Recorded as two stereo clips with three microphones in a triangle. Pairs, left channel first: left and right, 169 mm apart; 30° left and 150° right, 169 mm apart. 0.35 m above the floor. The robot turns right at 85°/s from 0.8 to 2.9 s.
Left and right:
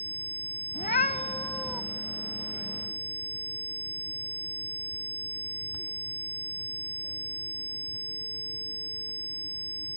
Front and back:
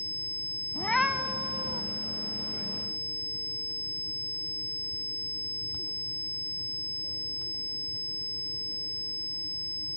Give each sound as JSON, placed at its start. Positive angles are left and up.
{"t": 0.8, "sound": "a cat meowing", "azimuth_deg": 105, "distance_m": 0.7}